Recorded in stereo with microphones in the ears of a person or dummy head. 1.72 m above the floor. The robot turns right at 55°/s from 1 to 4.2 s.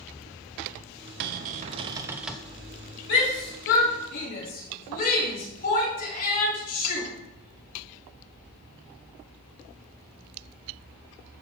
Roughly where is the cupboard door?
Ahead right.